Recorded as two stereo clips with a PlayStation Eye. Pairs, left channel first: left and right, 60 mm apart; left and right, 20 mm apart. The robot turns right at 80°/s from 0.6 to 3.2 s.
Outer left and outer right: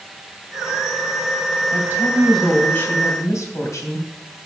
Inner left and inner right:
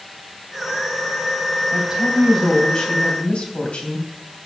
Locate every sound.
1.7 s a woman speaking: 50° right, 3 m; by 4.1 s 70° left, 3 m